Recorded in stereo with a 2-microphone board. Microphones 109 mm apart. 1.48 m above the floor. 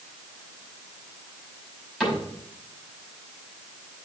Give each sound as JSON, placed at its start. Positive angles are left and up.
{"t": 2.0, "sound": "a cupboard door", "side_deg": 0, "distance_m": 5.5}